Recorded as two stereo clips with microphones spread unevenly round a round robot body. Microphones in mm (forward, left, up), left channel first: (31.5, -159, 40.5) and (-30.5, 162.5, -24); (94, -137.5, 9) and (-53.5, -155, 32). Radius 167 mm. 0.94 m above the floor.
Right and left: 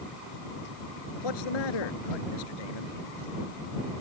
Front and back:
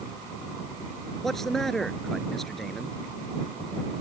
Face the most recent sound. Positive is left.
turn(degrees=-80)